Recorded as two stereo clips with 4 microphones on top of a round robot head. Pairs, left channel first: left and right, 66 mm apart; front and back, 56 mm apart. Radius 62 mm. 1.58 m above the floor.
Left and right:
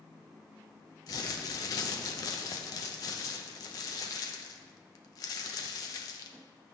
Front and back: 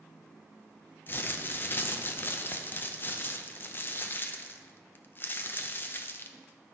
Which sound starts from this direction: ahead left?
Crumpling, at 1.1 s.